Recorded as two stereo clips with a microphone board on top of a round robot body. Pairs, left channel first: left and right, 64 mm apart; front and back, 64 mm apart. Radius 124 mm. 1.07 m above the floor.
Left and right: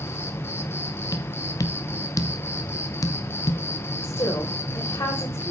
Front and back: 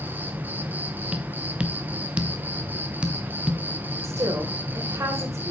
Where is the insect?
125° left, 1.7 m.